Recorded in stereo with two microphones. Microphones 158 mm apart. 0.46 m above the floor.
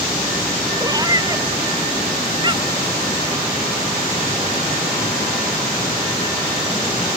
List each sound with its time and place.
0.8 s a cat meowing: 25° right (ahead or behind); by 2.9 s 30° right (ahead or behind)